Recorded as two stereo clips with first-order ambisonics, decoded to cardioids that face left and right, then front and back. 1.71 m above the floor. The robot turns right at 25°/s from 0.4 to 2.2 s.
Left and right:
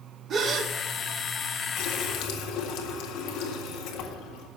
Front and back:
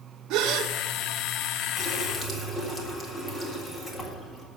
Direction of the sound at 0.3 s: 150° right.